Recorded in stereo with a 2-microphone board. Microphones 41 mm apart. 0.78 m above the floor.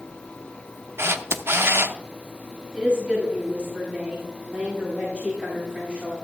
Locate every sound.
1.0 s a camera shutter: 80° right, 0.6 m
2.7 s a woman speaking: 30° right (ahead or behind), 5 m